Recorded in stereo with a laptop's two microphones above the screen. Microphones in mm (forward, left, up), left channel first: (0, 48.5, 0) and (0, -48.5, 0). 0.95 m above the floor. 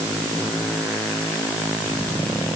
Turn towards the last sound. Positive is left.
No sound to turn to.